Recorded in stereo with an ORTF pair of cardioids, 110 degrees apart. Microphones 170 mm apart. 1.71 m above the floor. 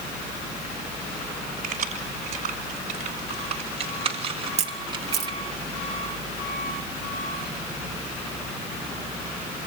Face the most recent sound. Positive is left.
turn(degrees=-40)